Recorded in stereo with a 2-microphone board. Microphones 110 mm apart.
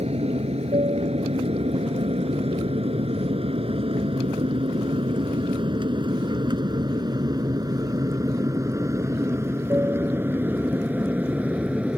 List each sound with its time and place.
0.0 s an aircraft: 70° right (ahead or behind); by 12.0 s 10° right (ahead or behind)